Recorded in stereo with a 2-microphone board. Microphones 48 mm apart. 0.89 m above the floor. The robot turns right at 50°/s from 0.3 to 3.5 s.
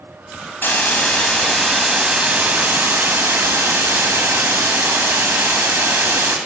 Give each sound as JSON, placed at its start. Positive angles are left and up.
{"t": 0.6, "sound": "a hiss", "azimuth_deg": 125, "distance_m": 1.3}